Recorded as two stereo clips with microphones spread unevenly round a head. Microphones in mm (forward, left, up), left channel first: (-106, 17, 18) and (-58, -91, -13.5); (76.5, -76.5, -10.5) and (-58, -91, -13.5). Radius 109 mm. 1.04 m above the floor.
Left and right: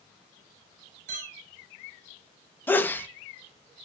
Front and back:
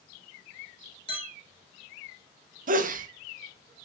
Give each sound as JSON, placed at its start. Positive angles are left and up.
{"t": 1.1, "sound": "a clink", "azimuth_deg": -45, "distance_m": 5.5}
{"t": 2.7, "sound": "a sneeze", "azimuth_deg": -165, "distance_m": 1.6}